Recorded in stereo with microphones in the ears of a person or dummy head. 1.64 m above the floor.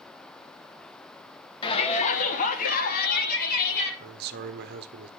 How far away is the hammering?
No hammering in this recording.